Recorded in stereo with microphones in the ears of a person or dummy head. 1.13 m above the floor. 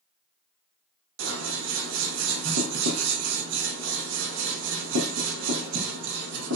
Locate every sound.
1.2 s scissors: 80° right, 1.0 m